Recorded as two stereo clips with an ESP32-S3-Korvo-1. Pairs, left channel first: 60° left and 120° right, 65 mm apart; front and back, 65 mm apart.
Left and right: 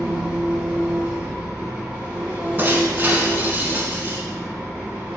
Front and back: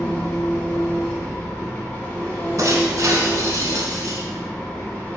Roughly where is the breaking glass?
Behind.